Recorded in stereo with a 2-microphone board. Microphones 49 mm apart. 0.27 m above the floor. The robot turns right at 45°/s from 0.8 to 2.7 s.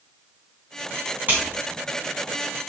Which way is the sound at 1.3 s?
40° right (ahead or behind).